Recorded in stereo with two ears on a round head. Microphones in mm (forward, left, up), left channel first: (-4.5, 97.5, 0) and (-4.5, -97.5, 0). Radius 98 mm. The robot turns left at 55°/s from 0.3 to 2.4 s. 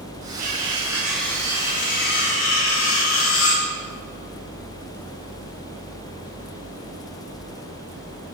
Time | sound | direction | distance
0.4 | cutlery clinking | 140° right | 9 m